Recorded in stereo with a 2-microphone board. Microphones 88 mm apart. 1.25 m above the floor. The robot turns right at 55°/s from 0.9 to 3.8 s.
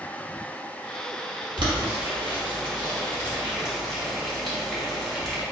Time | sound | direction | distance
1.6 | boiling | 60° right (ahead or behind) | 1.3 m